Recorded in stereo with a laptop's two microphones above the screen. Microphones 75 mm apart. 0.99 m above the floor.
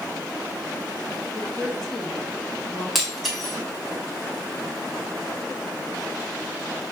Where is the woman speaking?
5° left (ahead or behind), 2.0 m.